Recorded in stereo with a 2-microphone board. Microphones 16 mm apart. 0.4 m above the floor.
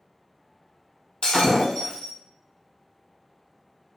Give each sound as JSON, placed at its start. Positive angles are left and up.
{"t": 1.2, "sound": "breaking glass", "side_deg": 70, "distance_m": 1.2}